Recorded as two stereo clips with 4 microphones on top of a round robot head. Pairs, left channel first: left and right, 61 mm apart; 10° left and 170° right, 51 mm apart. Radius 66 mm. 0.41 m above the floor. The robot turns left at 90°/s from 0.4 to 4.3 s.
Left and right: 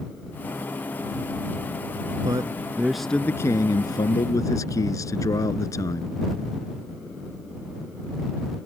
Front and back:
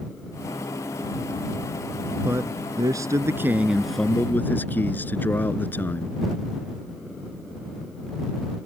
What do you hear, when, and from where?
2.2 s a man speaking: 115° right; by 6.2 s 60° left